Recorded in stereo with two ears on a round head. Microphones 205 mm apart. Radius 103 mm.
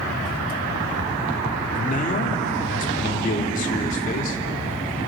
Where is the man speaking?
40° left (ahead or behind), 2.5 m.